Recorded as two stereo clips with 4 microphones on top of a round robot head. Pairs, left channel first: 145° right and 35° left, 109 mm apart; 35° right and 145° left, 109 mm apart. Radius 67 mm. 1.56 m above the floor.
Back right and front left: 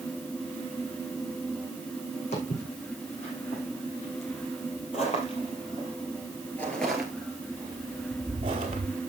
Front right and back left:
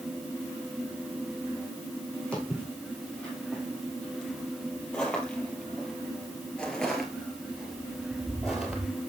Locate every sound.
2.3 s footsteps: 115° right, 4.5 m; by 8.9 s 60° left, 2 m